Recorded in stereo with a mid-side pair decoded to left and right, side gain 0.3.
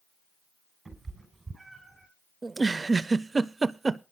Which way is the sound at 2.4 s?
35° right.